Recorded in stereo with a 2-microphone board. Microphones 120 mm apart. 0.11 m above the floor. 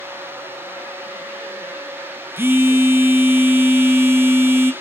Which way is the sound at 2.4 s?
20° right (ahead or behind).